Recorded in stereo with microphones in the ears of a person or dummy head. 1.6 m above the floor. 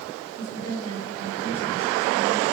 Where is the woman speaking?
35° left (ahead or behind), 8 m.